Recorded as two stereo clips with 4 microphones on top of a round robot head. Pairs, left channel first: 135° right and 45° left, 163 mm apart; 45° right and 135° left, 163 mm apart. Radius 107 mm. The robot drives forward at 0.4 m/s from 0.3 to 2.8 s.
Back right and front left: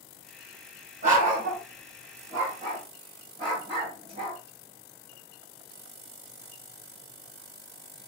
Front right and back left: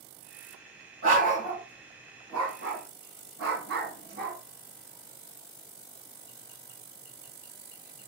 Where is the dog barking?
90° left, 2.5 m; by 4.4 s 105° left, 2.5 m.